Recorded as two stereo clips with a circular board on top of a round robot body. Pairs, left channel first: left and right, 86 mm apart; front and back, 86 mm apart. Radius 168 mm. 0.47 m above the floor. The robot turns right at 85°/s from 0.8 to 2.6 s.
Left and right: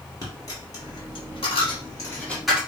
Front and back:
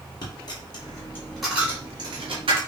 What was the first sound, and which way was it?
A dropped coin, 40° left.